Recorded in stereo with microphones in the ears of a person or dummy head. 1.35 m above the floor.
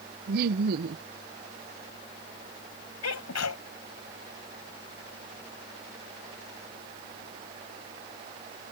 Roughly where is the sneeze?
Left.